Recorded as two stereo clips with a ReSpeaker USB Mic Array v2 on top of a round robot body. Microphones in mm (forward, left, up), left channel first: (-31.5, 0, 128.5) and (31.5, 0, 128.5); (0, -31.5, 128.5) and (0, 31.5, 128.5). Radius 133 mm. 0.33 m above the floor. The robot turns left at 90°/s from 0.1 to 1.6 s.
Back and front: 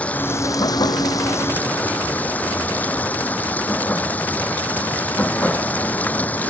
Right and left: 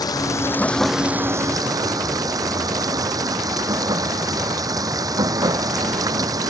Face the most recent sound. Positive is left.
turn(degrees=115)